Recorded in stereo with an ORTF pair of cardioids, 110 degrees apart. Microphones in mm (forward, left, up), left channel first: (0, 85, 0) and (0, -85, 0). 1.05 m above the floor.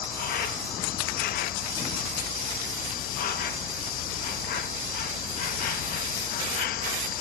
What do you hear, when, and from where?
0.0 s an insect: 60° left